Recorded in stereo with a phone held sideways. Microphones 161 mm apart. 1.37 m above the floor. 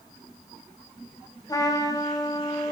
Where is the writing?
I don't hear writing.